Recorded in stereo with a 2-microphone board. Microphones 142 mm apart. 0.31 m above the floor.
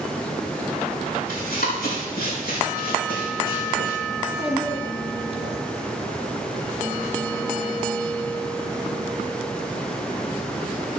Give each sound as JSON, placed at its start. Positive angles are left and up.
{"t": 1.3, "sound": "running footsteps", "side_deg": 75, "distance_m": 5.5}
{"t": 4.2, "sound": "a child speaking", "side_deg": 40, "distance_m": 1.6}